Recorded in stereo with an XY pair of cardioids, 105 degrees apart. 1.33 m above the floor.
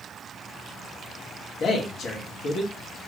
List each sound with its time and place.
1.6 s a man speaking: 55° left, 1.7 m